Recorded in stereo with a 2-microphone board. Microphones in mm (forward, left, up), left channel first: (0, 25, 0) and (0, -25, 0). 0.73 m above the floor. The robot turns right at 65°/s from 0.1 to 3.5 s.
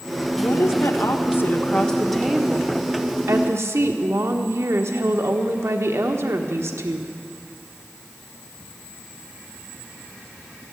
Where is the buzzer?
No buzzer in this recording.